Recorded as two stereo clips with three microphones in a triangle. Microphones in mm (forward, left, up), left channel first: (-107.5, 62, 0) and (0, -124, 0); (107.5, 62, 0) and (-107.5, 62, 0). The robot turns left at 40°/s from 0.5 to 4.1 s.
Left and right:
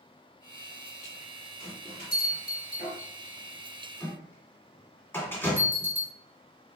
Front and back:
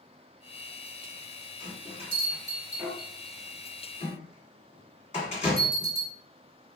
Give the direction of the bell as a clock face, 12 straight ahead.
7 o'clock.